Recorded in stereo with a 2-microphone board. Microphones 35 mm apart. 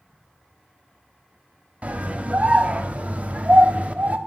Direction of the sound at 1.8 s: 35° right (ahead or behind).